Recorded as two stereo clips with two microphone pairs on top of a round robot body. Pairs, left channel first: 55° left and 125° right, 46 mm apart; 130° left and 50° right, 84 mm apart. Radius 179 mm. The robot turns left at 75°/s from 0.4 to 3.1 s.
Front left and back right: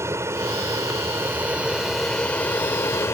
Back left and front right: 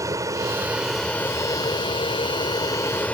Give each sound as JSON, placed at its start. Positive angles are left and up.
{"t": 0.0, "sound": "an aircraft", "azimuth_deg": -100}